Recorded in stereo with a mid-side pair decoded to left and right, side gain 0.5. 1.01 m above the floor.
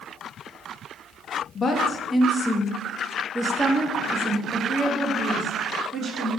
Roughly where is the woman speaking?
Ahead left.